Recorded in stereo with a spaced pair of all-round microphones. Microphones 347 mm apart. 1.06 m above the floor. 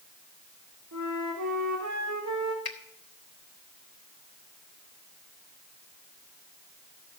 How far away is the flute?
About 2 m.